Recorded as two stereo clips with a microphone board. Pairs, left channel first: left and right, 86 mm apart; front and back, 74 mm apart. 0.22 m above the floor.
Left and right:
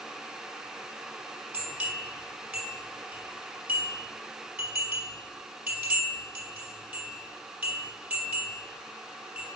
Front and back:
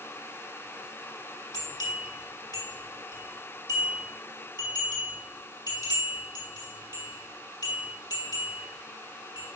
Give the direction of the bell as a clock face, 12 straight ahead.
1 o'clock.